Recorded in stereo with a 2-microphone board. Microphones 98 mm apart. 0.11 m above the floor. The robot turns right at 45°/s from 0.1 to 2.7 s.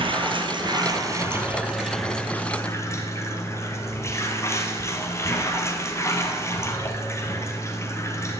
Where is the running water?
85° right, 1.5 m; by 8.4 s 30° left, 1.5 m.